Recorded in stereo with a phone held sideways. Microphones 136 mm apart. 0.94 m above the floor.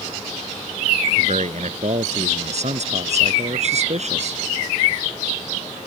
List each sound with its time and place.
1.2 s a man speaking: 55° right (ahead or behind)